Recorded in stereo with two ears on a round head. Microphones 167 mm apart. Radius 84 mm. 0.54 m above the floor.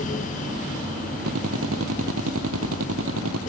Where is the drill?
85° right.